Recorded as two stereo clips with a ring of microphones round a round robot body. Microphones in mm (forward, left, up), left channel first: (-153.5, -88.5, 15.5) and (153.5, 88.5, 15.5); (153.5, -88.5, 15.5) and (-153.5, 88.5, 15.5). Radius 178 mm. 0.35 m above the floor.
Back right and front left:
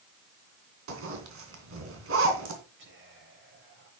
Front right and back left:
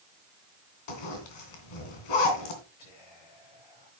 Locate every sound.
0.9 s a zipper: 25° right, 3 m
2.8 s whispering: 30° right, 8.5 m